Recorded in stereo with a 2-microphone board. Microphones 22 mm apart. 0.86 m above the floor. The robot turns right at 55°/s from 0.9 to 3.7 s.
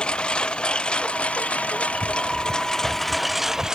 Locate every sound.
0.0 s a lawn mower: 50° left (ahead or behind); by 3.8 s 25° right (ahead or behind)